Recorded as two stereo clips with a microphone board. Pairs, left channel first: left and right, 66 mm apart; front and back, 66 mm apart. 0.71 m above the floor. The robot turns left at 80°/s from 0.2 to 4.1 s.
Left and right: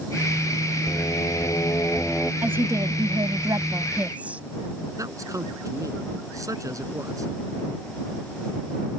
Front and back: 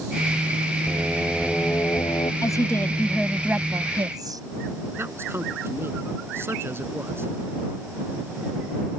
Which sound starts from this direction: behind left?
Singing, at 0.9 s.